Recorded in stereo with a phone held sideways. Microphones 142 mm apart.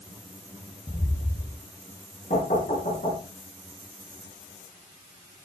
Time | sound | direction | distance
0.9 | footsteps | 40° left (ahead or behind) | 1.8 m
2.3 | knocking | 65° left (ahead or behind) | 8 m